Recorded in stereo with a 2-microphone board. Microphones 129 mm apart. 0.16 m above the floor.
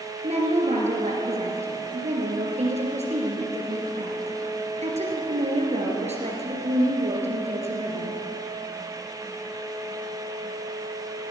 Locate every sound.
0.2 s a woman speaking: 60° right (ahead or behind), 3.5 m